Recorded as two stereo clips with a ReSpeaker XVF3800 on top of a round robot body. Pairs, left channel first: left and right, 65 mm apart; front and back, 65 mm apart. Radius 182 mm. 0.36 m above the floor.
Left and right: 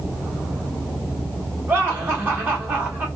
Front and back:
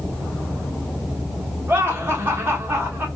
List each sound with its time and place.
1.7 s laughter: 135° right, 1.9 m